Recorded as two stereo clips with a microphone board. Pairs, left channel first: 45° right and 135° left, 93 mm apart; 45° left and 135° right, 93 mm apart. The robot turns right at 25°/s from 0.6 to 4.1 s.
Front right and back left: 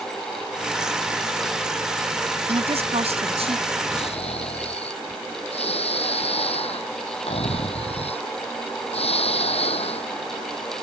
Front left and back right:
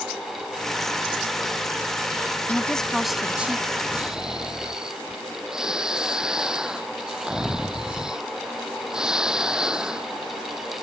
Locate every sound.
2.5 s a woman speaking: 125° left; by 3.8 s 155° left
3.9 s snoring: 55° right; by 10.1 s 50° right